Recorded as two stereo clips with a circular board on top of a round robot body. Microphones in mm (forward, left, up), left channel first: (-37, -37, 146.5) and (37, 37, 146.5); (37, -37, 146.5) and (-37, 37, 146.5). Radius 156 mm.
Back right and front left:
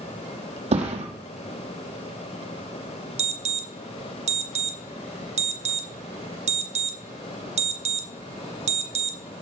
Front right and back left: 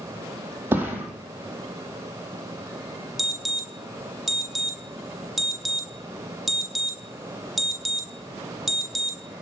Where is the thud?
65° left, 3.5 m.